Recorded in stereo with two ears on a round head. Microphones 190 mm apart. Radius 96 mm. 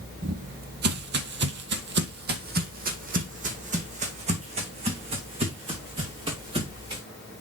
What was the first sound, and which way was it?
Footsteps, 40° right (ahead or behind).